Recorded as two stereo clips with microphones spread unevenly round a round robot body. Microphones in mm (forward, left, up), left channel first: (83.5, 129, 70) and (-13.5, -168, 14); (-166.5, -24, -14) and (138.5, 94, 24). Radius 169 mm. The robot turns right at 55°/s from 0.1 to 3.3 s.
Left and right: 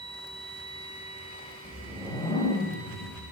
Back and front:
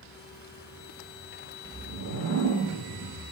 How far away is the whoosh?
About 0.6 m.